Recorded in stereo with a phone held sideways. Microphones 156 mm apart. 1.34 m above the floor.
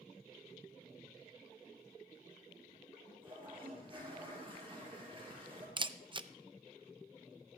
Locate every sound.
3.2 s a toilet flushing: 35° right (ahead or behind), 6 m
5.8 s a camera shutter: 30° right (ahead or behind), 0.5 m